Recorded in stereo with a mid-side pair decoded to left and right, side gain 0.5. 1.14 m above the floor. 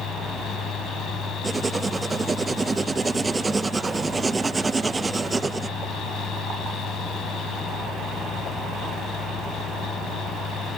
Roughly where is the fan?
Ahead left.